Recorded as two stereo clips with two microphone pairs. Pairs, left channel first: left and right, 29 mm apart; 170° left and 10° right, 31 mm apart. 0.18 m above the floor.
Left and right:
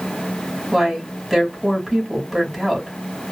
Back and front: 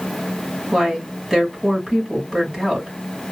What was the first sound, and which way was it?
A woman speaking, 10° right.